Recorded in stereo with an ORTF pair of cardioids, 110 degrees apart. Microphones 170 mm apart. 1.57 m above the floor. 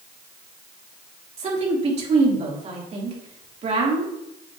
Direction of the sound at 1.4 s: 40° right.